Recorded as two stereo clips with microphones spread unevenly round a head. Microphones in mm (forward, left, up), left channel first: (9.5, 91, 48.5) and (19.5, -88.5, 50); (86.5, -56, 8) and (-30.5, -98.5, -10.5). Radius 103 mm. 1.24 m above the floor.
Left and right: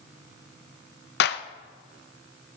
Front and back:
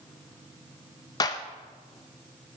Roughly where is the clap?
Left.